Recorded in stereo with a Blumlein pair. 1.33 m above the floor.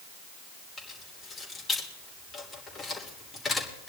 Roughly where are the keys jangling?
Ahead.